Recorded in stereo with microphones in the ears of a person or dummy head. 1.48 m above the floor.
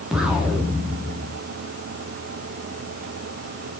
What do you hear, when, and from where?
0.1 s an explosion: 5° right (ahead or behind), 3 m